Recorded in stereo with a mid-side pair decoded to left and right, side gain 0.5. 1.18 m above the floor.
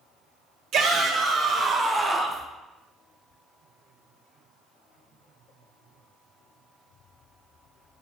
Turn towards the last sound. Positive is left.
turn(degrees=-5)